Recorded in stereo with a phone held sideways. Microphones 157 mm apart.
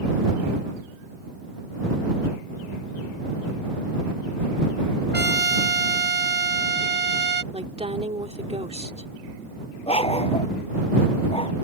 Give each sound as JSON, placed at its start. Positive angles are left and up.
{"t": 5.1, "sound": "a trumpet", "side_deg": -85}
{"t": 7.5, "sound": "a woman speaking", "side_deg": -40}
{"t": 9.9, "sound": "a dog barking", "side_deg": 35}